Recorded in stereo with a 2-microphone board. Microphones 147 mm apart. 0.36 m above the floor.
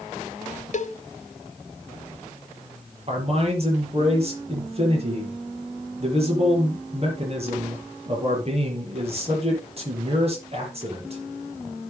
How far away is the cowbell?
About 0.8 m.